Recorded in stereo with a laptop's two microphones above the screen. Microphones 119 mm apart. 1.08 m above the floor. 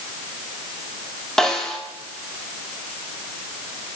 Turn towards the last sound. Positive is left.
turn(degrees=5)  # may be behind; listen again after turning